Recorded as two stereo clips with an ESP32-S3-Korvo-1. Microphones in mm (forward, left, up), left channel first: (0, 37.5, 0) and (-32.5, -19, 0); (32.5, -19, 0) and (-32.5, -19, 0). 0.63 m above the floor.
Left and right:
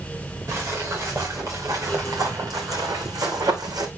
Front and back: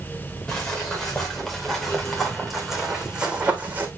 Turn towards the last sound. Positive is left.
turn(degrees=-120)